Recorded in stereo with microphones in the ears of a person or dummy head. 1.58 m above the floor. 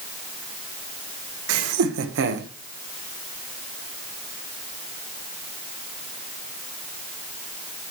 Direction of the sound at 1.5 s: 70° right (ahead or behind).